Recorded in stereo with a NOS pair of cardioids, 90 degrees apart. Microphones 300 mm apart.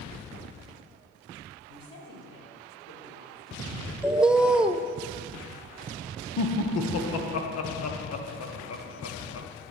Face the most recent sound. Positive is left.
turn(degrees=60)